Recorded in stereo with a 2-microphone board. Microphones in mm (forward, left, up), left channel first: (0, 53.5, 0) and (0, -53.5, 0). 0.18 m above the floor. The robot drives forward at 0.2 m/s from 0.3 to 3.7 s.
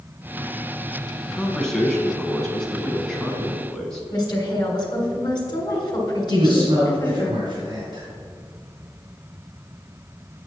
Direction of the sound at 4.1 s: 45° left (ahead or behind).